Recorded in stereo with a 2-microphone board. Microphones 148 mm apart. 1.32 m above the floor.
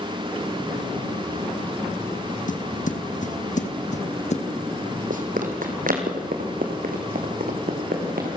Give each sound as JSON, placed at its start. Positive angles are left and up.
{"t": 2.5, "sound": "footsteps", "side_deg": 60, "distance_m": 2.5}
{"t": 5.1, "sound": "running footsteps", "side_deg": -65, "distance_m": 3.0}